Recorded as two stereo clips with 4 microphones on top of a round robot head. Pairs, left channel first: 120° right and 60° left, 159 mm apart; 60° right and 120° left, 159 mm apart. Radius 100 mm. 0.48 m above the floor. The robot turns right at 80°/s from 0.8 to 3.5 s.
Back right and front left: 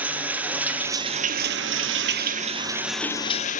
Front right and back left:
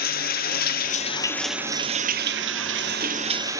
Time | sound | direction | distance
0.0 | running water | 25° right | 1.1 m